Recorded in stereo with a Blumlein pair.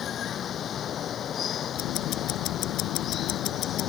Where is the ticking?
40° left.